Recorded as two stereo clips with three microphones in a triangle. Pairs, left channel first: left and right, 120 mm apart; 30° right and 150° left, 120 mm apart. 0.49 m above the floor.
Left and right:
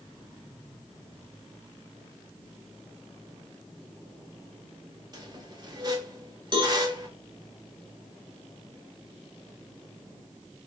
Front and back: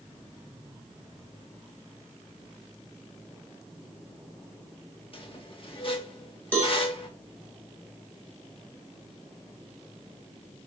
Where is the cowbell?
100° right, 1.1 m.